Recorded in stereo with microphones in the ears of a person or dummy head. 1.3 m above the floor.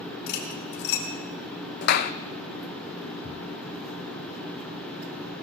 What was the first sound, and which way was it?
Cutlery clinking, 65° left (ahead or behind).